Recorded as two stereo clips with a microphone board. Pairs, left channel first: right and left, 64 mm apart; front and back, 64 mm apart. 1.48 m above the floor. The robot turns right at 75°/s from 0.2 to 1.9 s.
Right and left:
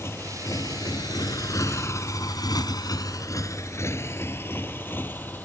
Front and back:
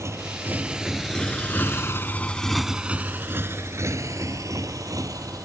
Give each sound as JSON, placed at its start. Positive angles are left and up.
{"t": 0.0, "sound": "a motorcycle", "azimuth_deg": -135}